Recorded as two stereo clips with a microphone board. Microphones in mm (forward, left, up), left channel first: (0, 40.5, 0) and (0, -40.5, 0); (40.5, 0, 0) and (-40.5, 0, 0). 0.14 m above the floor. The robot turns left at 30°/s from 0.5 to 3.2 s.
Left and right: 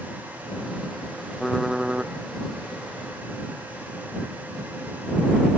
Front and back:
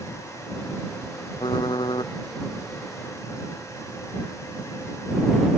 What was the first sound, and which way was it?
Typing on a keyboard, 5° left.